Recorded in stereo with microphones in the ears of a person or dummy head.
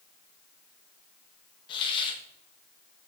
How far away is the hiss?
About 2.0 m.